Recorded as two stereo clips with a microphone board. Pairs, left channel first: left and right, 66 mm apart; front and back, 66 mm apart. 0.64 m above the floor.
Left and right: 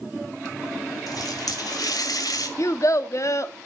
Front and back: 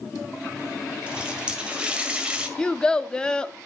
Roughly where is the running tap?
Left.